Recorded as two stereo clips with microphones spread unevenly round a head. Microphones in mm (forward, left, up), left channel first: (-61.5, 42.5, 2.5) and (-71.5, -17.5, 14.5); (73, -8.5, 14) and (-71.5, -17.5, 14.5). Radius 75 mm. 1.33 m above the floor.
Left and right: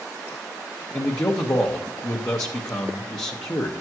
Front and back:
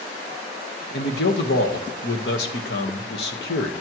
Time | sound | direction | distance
0.9 | a man speaking | 25° left | 1.4 m